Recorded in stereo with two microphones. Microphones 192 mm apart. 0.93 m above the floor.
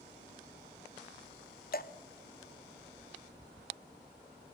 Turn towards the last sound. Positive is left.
turn(degrees=55)  # may be behind; listen again after turning